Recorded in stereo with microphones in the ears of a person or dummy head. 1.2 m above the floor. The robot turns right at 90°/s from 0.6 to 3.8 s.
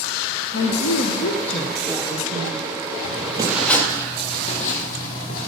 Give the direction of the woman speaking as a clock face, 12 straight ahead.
10 o'clock.